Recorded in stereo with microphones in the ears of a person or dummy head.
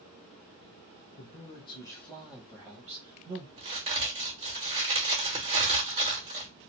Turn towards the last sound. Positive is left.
turn(degrees=-30)  # may be behind; listen again after turning